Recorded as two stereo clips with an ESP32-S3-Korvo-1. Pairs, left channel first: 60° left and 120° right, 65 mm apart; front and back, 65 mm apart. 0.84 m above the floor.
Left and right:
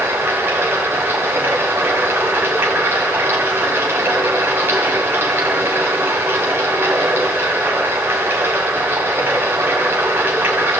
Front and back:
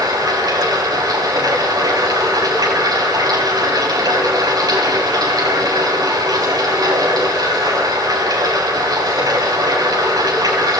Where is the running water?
Straight behind, 5.5 m.